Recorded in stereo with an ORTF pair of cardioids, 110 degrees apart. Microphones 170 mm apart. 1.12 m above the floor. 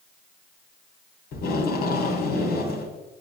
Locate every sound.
1.3 s tape being pulled: 65° left, 2.5 m